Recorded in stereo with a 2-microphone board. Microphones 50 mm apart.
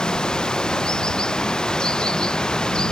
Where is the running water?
15° left (ahead or behind).